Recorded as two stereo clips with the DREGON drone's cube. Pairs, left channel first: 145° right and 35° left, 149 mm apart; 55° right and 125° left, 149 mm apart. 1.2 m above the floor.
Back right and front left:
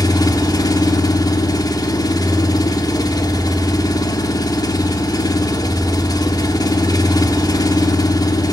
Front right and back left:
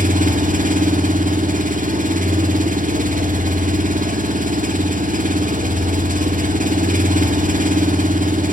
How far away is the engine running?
About 1.7 m.